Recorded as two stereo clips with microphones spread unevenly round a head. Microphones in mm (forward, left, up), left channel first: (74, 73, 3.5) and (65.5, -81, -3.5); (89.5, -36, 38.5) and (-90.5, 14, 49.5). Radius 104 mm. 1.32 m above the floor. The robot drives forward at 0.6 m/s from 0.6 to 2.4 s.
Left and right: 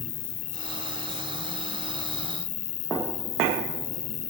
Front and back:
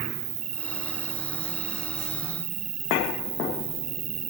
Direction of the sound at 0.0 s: 105° left.